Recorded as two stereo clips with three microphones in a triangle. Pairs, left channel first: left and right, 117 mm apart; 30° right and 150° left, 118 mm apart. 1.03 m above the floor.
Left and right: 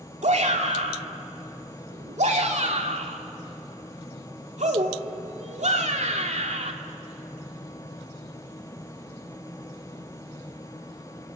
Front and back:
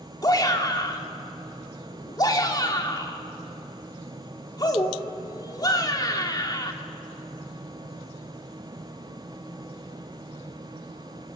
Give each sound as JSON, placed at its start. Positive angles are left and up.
{"t": 0.2, "sound": "a shout", "azimuth_deg": -85, "distance_m": 2.5}